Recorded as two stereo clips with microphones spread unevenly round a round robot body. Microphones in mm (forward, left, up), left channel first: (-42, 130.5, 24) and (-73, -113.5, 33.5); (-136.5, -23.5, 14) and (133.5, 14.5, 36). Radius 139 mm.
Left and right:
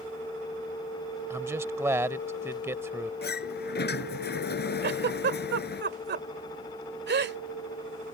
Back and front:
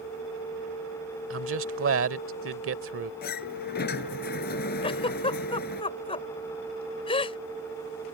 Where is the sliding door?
130° left.